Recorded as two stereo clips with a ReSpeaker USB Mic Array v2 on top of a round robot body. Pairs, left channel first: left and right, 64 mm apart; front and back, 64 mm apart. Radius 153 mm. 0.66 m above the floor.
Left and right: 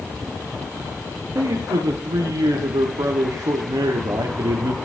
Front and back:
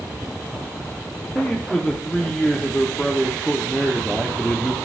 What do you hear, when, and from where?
1.4 s a man speaking: 80° right, 1.4 m